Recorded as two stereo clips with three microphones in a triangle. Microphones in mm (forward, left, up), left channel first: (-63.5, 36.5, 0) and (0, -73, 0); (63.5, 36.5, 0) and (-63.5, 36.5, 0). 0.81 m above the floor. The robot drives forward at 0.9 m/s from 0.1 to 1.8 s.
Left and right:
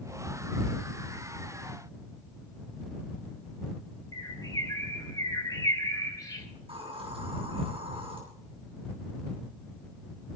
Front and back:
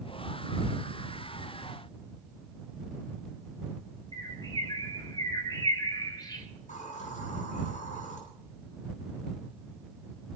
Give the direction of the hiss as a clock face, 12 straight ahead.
1 o'clock.